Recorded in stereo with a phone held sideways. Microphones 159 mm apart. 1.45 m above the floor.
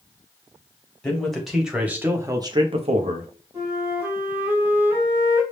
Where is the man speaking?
5° left (ahead or behind), 1.4 m; by 3.3 s 60° right (ahead or behind), 0.7 m.